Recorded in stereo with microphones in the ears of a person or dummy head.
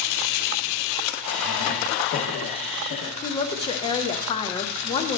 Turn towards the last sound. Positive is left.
turn(degrees=30)  # may be behind; listen again after turning